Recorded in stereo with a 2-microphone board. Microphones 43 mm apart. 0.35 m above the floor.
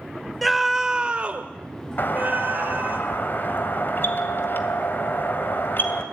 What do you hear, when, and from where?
0.4 s a scream: centre (ahead or behind), 1.2 m; by 3.0 s 40° right (ahead or behind), 2.5 m
2.0 s a doorbell: 50° left (ahead or behind), 2.5 m